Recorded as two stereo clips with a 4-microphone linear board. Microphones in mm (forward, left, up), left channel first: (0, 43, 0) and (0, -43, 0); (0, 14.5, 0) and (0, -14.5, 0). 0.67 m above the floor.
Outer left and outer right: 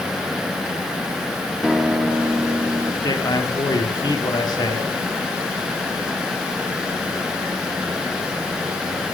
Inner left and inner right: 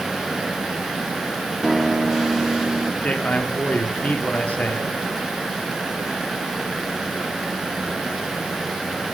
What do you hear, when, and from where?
1.6 s a guitar: centre (ahead or behind), 0.9 m
3.0 s a man speaking: 50° left (ahead or behind), 1.5 m